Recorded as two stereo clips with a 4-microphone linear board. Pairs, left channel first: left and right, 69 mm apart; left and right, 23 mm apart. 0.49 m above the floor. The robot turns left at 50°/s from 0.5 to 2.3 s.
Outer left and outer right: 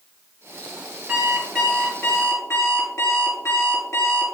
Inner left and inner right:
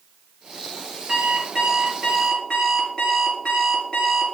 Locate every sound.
1.1 s an alarm clock: 160° right, 4.5 m; by 4.3 s 135° left, 4.5 m